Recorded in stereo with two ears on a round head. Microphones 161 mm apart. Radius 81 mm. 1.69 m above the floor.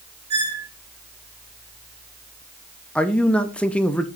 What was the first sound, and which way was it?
A squeak, 30° right (ahead or behind).